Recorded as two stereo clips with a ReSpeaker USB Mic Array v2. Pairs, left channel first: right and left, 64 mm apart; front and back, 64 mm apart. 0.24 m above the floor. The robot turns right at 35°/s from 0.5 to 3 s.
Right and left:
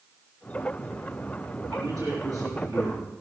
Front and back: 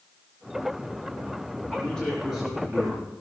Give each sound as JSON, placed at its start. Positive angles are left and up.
{"t": 1.7, "sound": "a man speaking", "azimuth_deg": 70, "distance_m": 4.5}